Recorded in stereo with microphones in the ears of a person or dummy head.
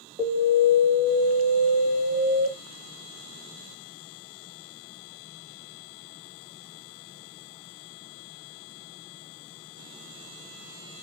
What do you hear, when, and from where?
0.2 s an alarm: 20° right (ahead or behind), 1.7 m